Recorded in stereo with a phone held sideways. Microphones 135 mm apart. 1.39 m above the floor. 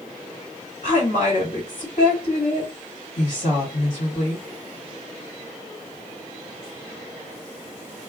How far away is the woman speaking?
About 1.7 m.